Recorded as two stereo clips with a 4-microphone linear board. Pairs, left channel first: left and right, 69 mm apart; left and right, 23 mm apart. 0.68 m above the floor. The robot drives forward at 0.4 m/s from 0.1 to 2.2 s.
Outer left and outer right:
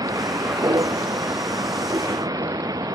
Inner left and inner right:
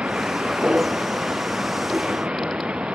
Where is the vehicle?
65° right (ahead or behind).